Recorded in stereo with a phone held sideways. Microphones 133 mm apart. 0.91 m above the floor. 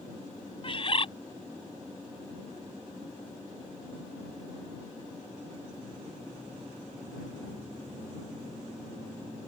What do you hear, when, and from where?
0.6 s a bird: 45° left (ahead or behind)